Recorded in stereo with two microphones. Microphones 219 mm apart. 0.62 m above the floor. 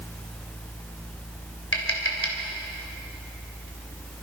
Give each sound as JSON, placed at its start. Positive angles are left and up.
{"t": 1.7, "sound": "tapping", "side_deg": 70, "distance_m": 3.0}